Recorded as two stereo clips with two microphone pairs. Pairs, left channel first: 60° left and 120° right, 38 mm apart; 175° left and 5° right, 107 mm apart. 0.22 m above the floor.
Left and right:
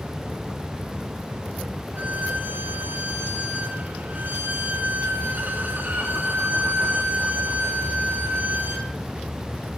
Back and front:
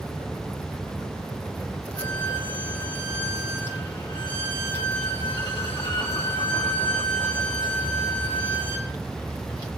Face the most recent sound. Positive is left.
turn(degrees=-145)